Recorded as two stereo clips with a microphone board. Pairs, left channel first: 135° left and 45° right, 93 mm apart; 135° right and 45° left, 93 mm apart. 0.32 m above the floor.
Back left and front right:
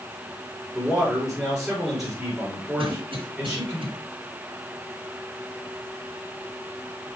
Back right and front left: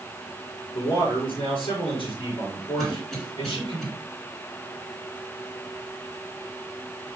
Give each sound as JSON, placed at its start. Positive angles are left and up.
{"t": 0.7, "sound": "a man speaking", "azimuth_deg": -130, "distance_m": 4.5}
{"t": 2.8, "sound": "a cough", "azimuth_deg": -50, "distance_m": 3.5}